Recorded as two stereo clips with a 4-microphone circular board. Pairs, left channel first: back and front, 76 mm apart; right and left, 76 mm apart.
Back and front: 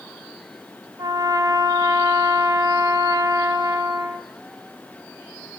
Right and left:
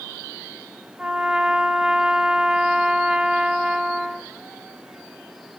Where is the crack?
No crack in this recording.